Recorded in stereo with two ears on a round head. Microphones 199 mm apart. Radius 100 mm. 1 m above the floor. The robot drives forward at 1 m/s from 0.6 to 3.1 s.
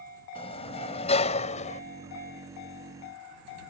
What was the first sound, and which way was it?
A sliding door, 25° left (ahead or behind).